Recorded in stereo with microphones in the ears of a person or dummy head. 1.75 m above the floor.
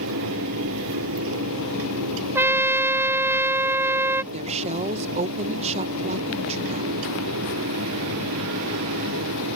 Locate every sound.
0.0 s a fan: 70° right (ahead or behind)
2.4 s a trumpet: 5° right (ahead or behind)
4.3 s a woman speaking: 30° right (ahead or behind)